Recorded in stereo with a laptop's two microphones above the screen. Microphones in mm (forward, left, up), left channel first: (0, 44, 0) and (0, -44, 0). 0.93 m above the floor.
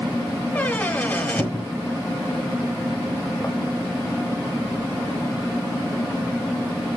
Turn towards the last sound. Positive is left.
turn(degrees=20)  # may be behind; listen again after turning